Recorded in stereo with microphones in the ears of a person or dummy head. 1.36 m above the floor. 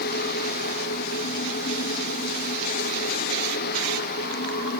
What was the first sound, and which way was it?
Only background noise.